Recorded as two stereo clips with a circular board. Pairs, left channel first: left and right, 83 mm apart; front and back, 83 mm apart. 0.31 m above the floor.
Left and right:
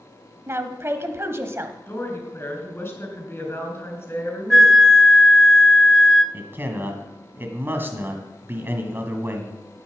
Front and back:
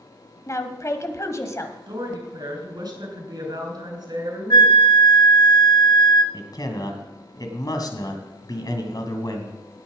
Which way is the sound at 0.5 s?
40° right.